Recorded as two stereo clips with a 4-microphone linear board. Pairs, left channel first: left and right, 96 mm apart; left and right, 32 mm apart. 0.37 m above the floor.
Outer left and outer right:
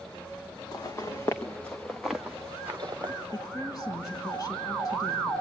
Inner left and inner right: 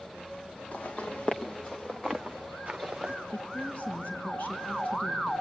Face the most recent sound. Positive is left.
turn(degrees=40)  # may be behind; listen again after turning